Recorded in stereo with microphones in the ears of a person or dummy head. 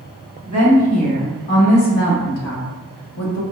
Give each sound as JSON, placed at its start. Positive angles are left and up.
{"t": 0.5, "sound": "a woman speaking", "side_deg": 30, "distance_m": 1.9}